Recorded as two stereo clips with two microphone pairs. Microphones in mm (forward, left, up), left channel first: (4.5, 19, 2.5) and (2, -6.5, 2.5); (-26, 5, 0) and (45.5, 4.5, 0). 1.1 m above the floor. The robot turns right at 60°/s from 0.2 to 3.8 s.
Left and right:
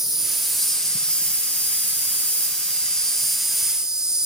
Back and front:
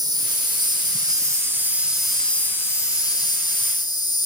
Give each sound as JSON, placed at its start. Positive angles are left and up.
{"t": 0.0, "sound": "an insect", "azimuth_deg": -20, "distance_m": 0.9}